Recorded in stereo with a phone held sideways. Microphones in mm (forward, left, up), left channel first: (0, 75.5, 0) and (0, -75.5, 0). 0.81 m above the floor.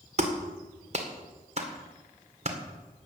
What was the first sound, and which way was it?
A clap, 45° right (ahead or behind).